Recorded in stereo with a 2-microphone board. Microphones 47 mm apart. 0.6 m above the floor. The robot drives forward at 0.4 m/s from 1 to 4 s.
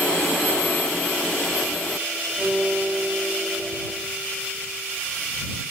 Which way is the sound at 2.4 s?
35° right (ahead or behind).